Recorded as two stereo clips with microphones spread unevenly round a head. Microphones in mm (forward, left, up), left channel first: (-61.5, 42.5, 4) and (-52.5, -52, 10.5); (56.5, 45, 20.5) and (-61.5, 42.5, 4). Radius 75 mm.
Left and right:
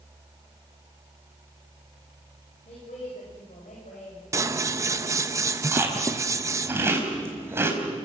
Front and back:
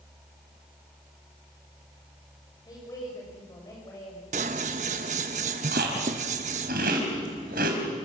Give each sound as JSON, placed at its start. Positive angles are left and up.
{"t": 2.6, "sound": "a woman speaking", "azimuth_deg": 60, "distance_m": 6.0}
{"t": 4.3, "sound": "scissors", "azimuth_deg": -135, "distance_m": 1.1}
{"t": 5.7, "sound": "chewing", "azimuth_deg": -145, "distance_m": 4.5}